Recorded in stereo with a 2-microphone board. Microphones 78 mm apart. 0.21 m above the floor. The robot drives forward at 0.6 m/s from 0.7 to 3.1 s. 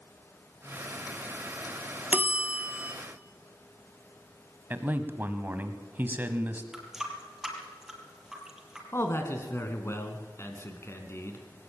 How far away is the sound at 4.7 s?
About 1.5 m.